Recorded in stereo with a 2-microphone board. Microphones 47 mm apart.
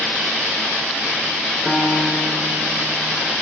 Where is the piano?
10° left (ahead or behind), 3 m.